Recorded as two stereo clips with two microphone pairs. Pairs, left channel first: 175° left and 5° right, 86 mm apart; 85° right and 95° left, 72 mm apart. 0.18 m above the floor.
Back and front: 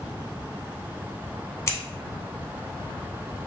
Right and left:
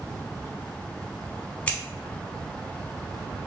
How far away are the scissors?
About 0.6 m.